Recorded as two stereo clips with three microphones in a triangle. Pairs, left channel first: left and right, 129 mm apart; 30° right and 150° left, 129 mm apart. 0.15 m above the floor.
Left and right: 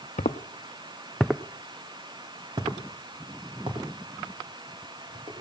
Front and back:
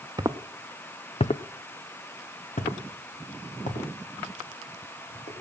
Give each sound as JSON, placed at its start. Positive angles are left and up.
{"t": 0.2, "sound": "footsteps", "azimuth_deg": 95, "distance_m": 0.8}